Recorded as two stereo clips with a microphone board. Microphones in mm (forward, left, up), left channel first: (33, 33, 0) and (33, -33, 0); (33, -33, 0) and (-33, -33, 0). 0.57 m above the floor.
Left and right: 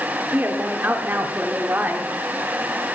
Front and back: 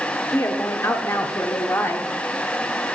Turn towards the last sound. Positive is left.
turn(degrees=-35)